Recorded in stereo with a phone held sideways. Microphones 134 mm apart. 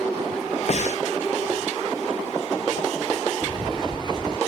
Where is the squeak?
35° right (ahead or behind).